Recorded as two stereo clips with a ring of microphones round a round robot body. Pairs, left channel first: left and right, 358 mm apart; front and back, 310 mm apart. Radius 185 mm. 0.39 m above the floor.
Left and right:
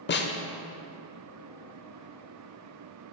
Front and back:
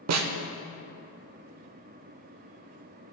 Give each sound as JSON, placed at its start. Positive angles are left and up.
{"t": 0.1, "sound": "a snare drum", "azimuth_deg": 150, "distance_m": 0.7}